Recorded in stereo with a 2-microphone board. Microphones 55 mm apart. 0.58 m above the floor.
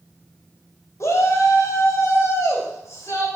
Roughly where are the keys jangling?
No keys jangling in this recording.